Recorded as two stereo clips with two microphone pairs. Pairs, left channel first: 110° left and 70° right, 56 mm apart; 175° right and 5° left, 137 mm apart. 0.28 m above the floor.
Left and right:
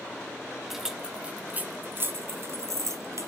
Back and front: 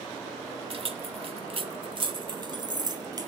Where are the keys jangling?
20° left, 1.1 m; by 3.3 s 55° right, 1.7 m.